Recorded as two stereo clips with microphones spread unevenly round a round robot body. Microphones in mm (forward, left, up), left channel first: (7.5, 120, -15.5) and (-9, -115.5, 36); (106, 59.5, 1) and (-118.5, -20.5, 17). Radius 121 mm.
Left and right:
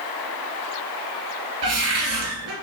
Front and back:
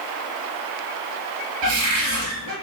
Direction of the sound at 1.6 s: 125° right.